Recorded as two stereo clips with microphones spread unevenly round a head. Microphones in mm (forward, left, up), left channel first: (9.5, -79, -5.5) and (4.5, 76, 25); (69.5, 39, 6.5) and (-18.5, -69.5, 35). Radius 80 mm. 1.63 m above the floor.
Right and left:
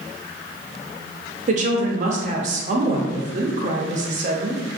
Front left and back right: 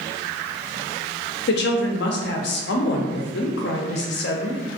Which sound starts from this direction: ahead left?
A woman speaking, at 1.5 s.